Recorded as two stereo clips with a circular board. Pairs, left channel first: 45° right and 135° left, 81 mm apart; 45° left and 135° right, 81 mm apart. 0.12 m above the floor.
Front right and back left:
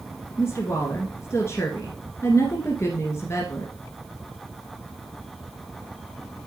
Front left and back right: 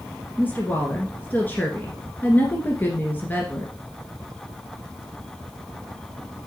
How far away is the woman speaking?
About 1.5 m.